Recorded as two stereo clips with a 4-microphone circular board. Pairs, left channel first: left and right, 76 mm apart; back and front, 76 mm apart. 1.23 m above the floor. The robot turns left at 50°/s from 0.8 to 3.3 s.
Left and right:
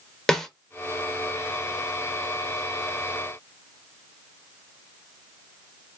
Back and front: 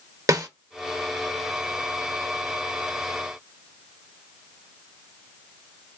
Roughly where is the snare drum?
Ahead.